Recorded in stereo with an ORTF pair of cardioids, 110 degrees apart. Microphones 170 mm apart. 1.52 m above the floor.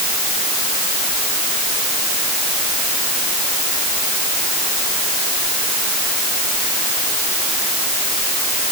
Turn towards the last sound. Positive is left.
No sound to turn to.